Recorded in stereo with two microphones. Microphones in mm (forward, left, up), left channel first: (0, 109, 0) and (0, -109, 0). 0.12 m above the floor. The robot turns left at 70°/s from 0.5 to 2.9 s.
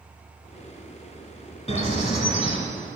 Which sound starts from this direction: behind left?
A bird, at 1.7 s.